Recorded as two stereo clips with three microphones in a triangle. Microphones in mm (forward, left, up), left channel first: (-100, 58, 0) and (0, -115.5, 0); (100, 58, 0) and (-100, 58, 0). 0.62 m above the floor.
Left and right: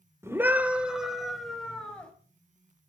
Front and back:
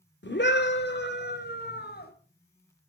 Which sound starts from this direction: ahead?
A scream, at 0.2 s.